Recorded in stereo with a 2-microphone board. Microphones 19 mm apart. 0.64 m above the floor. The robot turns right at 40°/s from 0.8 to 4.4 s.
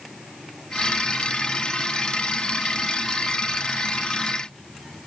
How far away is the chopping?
No chopping in this recording.